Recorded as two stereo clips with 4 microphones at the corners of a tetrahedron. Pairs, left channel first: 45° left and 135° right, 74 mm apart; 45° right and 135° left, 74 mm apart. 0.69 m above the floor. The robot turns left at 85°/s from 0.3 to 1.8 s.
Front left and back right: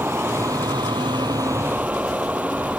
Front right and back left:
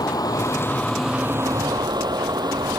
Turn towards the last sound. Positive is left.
turn(degrees=155)